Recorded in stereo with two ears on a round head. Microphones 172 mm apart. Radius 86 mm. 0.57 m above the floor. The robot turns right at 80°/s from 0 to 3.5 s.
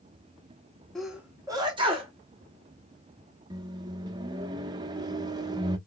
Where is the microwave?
20° right (ahead or behind), 0.5 m.